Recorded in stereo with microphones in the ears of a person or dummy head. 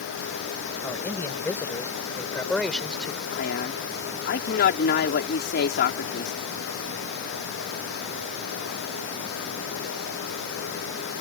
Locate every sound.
0.8 s a man speaking: 15° left (ahead or behind); by 3.2 s 5° left (ahead or behind)
3.3 s a man speaking: 60° left (ahead or behind)